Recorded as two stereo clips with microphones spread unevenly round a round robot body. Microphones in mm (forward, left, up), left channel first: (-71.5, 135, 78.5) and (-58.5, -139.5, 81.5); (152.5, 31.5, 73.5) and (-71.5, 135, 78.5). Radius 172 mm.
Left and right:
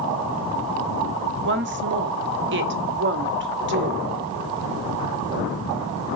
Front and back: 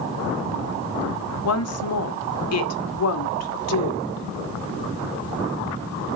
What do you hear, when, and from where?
1.4 s a woman speaking: 40° right, 1.5 m